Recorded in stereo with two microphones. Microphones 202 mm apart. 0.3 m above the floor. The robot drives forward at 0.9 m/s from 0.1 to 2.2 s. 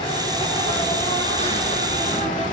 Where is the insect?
25° left (ahead or behind), 4.5 m; by 2.5 s 40° left (ahead or behind), 3 m.